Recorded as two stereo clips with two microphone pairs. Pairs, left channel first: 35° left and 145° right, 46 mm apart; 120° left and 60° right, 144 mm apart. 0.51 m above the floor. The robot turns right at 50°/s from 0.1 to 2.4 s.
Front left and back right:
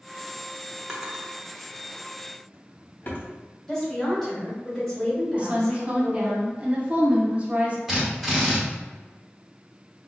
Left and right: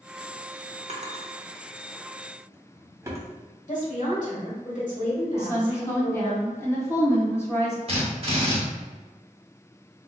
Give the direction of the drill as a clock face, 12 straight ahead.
2 o'clock.